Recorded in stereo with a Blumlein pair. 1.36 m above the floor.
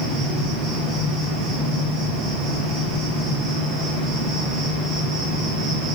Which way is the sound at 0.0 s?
30° right.